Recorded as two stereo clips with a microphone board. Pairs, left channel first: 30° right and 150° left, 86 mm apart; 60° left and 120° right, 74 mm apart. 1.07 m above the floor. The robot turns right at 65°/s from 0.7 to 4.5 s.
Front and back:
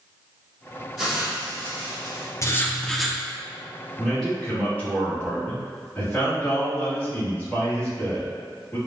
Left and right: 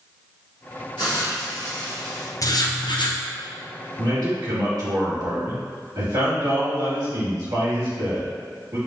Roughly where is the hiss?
Ahead left.